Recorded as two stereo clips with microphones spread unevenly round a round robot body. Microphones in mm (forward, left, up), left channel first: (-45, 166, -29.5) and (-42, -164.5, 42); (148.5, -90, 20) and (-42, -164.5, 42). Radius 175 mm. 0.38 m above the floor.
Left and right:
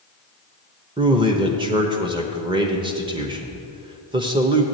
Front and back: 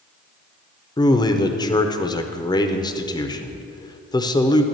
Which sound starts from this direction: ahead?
A man speaking, at 1.0 s.